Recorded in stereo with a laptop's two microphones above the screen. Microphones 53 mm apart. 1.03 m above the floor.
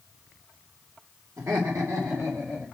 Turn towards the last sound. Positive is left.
turn(degrees=-50)  # may be behind; listen again after turning